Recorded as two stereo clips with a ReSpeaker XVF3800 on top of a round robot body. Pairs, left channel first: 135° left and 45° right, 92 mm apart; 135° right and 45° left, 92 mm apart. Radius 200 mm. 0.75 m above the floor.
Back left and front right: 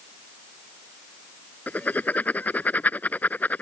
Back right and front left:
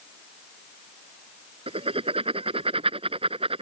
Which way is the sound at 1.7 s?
60° left.